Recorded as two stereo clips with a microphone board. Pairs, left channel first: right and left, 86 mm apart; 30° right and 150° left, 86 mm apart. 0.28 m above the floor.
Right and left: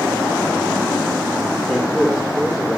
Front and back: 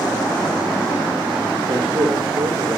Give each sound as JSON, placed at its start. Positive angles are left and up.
{"t": 1.7, "sound": "a man speaking", "azimuth_deg": -170, "distance_m": 6.0}